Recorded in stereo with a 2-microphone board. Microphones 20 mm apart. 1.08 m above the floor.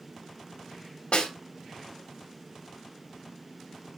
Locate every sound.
1.1 s a snare drum: 80° left, 2.5 m